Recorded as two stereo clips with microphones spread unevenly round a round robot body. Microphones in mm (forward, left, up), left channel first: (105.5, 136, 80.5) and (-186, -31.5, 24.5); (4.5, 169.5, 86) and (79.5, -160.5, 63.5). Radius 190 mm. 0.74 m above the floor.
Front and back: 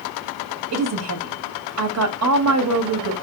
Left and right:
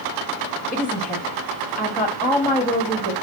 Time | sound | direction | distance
0.7 | a woman speaking | 175° right | 1.5 m